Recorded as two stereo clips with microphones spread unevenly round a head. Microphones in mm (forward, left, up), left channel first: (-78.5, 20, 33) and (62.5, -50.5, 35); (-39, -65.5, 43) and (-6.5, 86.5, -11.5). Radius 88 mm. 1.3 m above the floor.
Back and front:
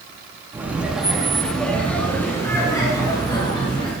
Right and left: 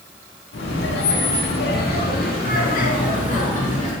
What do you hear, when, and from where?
0.5 s laughter: 105° right, 3.5 m; by 3.9 s 150° right, 5 m